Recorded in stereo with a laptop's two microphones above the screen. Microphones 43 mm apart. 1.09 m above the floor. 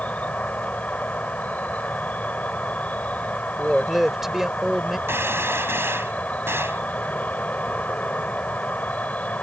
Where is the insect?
40° left (ahead or behind).